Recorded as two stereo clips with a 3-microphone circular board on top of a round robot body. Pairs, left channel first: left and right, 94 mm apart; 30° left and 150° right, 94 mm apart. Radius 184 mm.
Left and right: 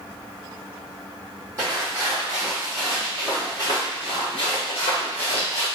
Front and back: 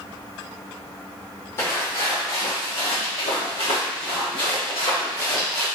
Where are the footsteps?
30° right, 1.2 m; by 5.7 s 90° left, 1.4 m.